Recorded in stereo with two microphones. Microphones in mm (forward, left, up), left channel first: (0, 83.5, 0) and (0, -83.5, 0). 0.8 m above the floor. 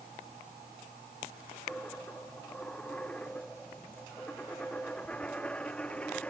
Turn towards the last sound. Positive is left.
turn(degrees=5)  # may be behind; listen again after turning